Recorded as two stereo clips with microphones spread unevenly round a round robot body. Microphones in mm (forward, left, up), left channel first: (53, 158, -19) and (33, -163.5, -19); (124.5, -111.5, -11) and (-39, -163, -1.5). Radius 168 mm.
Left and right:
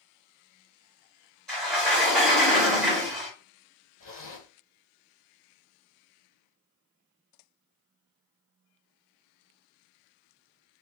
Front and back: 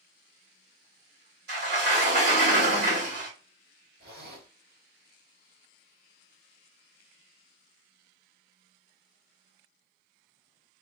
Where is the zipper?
155° left, 2.5 m.